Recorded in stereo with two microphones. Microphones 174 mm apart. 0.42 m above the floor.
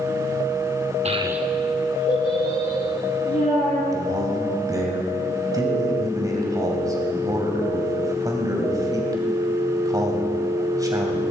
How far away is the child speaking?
About 0.6 m.